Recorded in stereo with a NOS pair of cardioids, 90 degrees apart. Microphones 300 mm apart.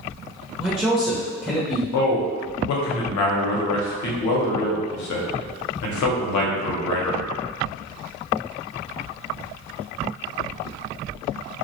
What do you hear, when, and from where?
0.6 s a man speaking: 5° right, 0.6 m
1.9 s a man speaking: 70° left, 0.7 m